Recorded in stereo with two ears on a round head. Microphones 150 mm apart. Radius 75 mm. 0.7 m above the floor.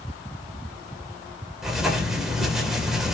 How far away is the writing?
About 3 m.